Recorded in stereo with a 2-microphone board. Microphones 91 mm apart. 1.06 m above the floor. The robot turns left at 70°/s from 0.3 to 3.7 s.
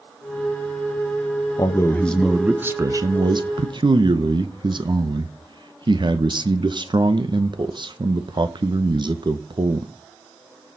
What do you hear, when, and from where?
1.6 s a man speaking: 50° left, 0.9 m; by 9.9 s 100° right, 0.9 m